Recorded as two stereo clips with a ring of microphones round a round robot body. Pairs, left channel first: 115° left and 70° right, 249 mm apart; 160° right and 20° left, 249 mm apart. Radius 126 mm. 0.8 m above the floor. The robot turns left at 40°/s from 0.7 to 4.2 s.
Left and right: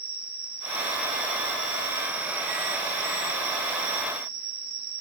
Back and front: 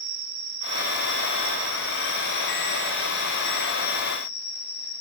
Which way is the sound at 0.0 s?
15° left.